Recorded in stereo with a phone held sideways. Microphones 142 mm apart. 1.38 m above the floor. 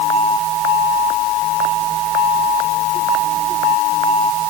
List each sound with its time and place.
Only background noise.